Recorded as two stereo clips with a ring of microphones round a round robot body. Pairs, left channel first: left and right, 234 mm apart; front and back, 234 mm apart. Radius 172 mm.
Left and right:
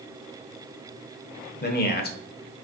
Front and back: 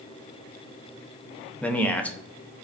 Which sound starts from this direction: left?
A man speaking, at 1.6 s.